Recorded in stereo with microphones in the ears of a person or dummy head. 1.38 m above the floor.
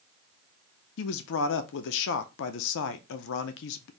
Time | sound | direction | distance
1.0 | a man speaking | 65° left (ahead or behind) | 0.6 m